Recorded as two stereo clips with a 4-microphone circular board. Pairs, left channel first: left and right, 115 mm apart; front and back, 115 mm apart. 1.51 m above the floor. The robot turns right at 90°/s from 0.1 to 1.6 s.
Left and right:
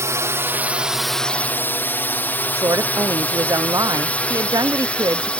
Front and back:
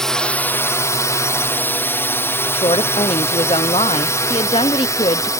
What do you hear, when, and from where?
0.0 s a drone: 80° right; by 5.4 s 20° left
2.5 s a woman speaking: 35° right